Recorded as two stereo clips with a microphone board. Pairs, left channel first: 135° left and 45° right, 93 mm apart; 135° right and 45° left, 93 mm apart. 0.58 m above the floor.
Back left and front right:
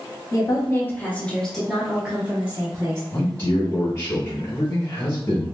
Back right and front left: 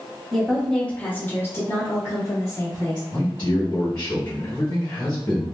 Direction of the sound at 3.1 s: 175° right.